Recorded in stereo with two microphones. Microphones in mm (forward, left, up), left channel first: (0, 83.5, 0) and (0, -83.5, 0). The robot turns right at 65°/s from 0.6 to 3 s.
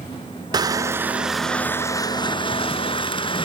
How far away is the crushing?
About 0.6 m.